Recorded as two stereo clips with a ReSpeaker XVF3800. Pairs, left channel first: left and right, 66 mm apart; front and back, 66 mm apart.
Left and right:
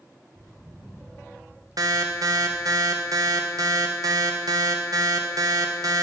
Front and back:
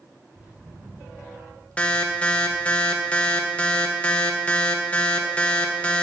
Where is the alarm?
70° right, 0.8 m.